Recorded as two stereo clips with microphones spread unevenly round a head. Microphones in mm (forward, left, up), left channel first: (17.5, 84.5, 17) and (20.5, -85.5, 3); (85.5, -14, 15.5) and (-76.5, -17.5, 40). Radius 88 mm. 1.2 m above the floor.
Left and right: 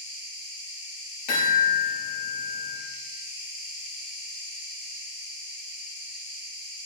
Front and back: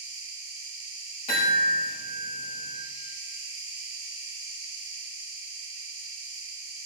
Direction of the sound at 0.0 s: 150° right.